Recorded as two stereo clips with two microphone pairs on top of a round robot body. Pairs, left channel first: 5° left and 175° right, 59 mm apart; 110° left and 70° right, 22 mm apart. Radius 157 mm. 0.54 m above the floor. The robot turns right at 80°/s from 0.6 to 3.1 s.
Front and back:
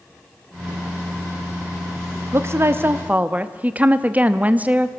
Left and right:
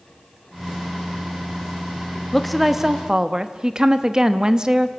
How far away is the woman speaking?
About 1.3 m.